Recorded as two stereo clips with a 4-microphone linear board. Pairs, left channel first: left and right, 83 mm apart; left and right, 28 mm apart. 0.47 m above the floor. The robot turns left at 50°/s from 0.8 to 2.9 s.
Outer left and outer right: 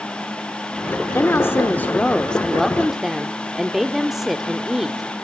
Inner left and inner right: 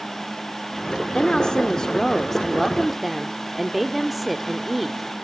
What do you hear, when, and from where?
1.1 s a woman speaking: 80° left, 0.8 m; by 5.2 s 10° right, 0.8 m